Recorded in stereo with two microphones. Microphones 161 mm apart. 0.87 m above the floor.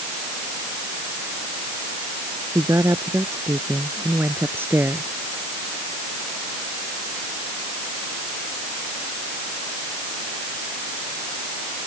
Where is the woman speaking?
20° right (ahead or behind); by 5.2 s 10° right (ahead or behind).